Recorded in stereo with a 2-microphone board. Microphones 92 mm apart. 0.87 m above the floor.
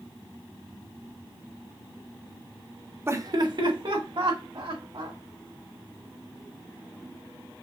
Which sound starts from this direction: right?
Laughter, at 3.1 s.